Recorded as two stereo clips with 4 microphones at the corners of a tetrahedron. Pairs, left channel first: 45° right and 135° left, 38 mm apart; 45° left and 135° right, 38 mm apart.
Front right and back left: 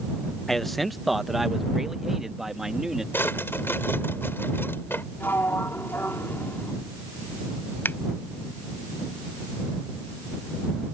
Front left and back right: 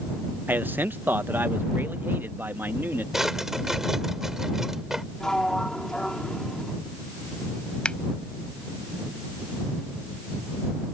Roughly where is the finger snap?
Ahead.